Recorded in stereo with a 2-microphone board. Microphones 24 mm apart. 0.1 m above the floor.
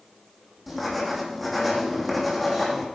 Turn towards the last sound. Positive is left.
turn(degrees=0)  # may be behind; listen again after turning